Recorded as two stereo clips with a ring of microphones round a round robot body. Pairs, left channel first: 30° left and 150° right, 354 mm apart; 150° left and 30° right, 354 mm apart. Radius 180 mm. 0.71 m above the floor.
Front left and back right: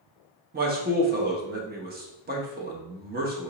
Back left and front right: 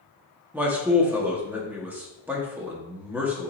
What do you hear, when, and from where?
0.5 s a man speaking: 110° right, 0.8 m